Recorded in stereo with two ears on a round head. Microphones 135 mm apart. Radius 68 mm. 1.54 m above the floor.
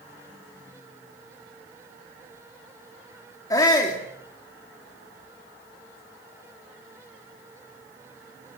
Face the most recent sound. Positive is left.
turn(degrees=25)  # may be behind; listen again after turning